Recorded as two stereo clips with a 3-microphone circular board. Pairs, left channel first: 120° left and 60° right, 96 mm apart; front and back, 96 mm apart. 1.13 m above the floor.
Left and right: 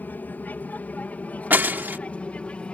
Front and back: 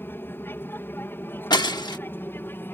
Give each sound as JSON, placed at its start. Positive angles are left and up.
{"t": 0.0, "sound": "an aircraft", "azimuth_deg": 55}
{"t": 1.5, "sound": "breaking glass", "azimuth_deg": 5}